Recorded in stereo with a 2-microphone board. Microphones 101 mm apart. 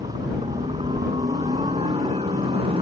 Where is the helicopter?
65° right (ahead or behind).